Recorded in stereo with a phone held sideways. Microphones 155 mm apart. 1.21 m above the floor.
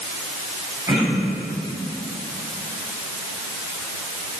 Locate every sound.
0.9 s throat clearing: 15° right (ahead or behind), 8 m